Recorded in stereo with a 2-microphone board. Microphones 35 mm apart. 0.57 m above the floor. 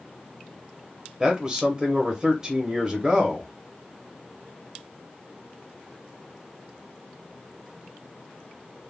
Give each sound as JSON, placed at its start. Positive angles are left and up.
{"t": 1.2, "sound": "a man speaking", "side_deg": -20, "distance_m": 0.7}